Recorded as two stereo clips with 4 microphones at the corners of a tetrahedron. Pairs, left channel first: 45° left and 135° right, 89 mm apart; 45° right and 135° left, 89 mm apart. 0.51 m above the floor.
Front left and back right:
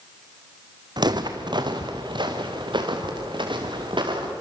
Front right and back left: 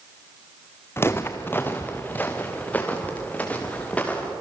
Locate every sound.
1.0 s footsteps: 105° right, 1.8 m; by 4.3 s 120° right, 5.5 m